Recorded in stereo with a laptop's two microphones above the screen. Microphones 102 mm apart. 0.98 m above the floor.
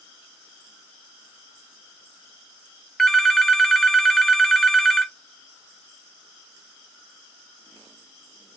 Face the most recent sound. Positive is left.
turn(degrees=5)  # may be behind; listen again after turning